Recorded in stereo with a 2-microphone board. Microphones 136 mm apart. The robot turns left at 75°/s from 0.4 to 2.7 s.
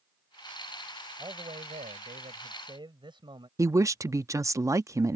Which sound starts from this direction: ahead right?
A man speaking, at 1.2 s.